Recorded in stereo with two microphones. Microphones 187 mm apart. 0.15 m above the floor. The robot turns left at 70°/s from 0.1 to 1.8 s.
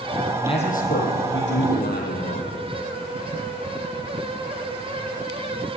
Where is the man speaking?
160° left, 5 m; by 2.5 s 60° left, 5 m.